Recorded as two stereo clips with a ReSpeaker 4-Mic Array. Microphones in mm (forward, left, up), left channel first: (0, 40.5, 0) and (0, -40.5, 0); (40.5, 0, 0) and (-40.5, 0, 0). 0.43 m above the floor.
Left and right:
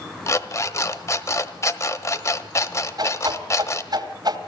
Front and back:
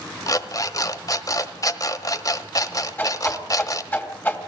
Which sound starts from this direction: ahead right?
A whoosh, at 3.0 s.